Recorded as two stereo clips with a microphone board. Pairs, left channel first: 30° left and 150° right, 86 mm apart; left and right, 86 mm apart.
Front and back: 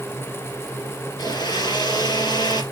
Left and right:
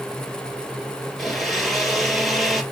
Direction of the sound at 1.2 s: Straight ahead.